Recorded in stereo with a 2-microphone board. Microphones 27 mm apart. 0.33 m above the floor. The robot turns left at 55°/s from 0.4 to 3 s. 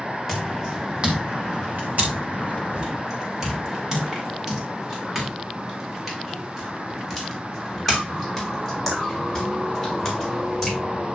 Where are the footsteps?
5° left (ahead or behind), 4.5 m; by 10.8 s 10° left (ahead or behind), 9 m.